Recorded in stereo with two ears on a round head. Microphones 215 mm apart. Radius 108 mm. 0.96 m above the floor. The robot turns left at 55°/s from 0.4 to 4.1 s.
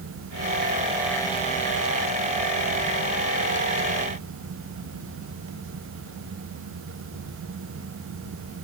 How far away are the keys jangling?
I don't hear keys jangling.